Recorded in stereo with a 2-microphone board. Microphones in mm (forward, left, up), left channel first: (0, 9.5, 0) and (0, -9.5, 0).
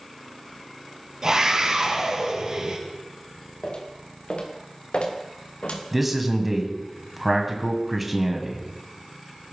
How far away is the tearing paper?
No tearing paper in this recording.